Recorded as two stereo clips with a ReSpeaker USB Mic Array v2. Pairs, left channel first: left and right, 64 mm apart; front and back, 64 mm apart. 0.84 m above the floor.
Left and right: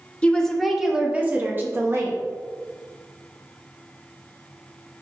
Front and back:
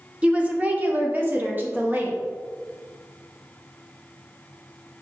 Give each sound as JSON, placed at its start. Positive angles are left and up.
{"t": 0.2, "sound": "a woman speaking", "azimuth_deg": 130, "distance_m": 0.7}